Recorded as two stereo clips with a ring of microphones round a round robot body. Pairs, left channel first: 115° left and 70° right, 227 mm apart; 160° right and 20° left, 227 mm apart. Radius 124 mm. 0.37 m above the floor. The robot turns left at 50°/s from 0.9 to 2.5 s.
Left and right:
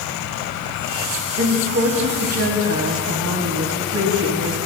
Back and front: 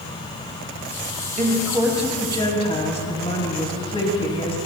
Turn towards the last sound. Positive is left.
turn(degrees=-90)